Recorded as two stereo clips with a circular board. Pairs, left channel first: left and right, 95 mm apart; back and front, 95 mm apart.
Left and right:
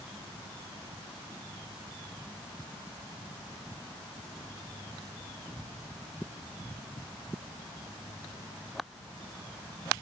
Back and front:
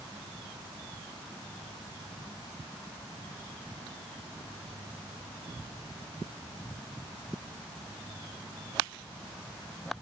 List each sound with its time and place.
Only background noise.